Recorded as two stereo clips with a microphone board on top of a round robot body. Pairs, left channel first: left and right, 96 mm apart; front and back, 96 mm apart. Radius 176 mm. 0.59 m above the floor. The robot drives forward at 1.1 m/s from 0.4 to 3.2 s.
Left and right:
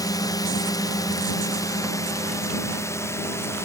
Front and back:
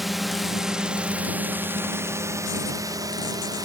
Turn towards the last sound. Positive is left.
turn(degrees=140)